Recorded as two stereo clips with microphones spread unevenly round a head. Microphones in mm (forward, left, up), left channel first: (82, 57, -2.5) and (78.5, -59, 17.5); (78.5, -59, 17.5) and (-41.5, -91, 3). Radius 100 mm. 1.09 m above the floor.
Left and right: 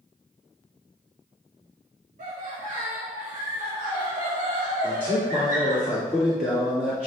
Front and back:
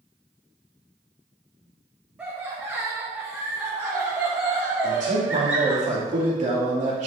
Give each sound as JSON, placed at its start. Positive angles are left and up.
{"t": 2.2, "sound": "laughter", "azimuth_deg": -90, "distance_m": 1.4}
{"t": 4.8, "sound": "a man speaking", "azimuth_deg": -175, "distance_m": 2.5}